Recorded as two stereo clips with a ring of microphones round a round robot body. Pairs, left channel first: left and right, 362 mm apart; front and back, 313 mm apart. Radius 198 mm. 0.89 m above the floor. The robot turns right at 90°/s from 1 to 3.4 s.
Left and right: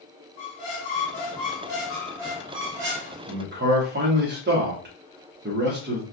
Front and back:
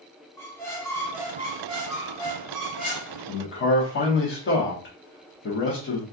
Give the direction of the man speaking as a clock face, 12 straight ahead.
2 o'clock.